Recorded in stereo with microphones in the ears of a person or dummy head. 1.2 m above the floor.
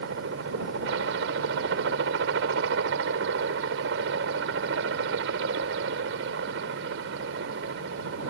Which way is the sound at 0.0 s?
70° right (ahead or behind).